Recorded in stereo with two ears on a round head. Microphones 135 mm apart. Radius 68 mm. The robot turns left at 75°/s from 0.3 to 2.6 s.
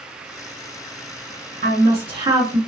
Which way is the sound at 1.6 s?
95° right.